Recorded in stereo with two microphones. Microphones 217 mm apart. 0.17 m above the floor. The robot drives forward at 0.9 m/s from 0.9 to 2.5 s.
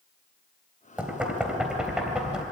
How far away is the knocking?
About 2.5 m.